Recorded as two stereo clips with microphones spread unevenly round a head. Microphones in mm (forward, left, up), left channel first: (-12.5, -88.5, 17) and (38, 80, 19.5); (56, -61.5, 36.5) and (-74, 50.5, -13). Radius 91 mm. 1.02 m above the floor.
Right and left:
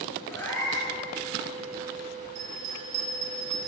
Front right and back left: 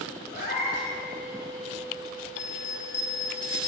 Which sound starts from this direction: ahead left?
A bell, at 2.4 s.